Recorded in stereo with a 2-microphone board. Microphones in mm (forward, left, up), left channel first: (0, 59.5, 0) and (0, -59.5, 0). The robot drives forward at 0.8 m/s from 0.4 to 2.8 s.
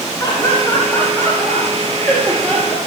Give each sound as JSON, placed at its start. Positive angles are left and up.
{"t": 0.2, "sound": "laughter", "side_deg": 30, "distance_m": 2.5}